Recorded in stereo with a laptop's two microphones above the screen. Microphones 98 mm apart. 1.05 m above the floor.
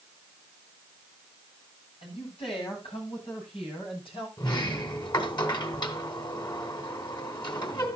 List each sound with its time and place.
2.0 s a man speaking: 60° left (ahead or behind), 8.5 m; by 4.3 s 55° left (ahead or behind), 7 m
4.4 s a sliding door: 45° left (ahead or behind), 1.8 m